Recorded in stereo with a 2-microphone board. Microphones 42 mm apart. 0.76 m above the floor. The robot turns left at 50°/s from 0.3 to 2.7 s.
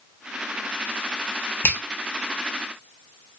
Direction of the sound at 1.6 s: 60° left (ahead or behind).